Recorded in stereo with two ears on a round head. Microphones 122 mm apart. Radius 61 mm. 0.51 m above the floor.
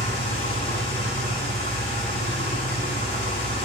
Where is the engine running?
45° left (ahead or behind), 1.6 m.